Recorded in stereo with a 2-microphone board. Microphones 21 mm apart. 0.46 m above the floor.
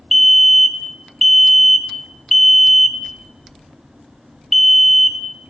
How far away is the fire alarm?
About 1.9 m.